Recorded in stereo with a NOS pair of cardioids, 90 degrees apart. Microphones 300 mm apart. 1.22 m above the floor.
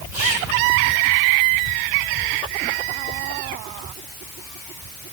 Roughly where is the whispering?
Ahead.